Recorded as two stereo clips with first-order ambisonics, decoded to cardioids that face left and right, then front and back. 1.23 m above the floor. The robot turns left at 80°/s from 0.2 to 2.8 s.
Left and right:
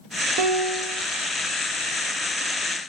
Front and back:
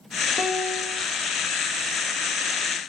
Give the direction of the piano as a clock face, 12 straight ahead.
3 o'clock.